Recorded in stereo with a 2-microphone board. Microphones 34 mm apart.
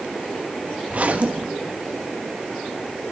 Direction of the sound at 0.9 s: 45° right (ahead or behind).